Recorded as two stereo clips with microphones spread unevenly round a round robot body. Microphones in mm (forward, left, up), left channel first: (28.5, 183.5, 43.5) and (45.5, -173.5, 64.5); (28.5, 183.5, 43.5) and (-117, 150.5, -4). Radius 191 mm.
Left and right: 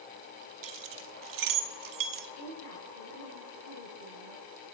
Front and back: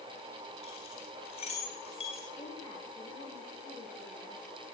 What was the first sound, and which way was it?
Keys jangling, 60° right.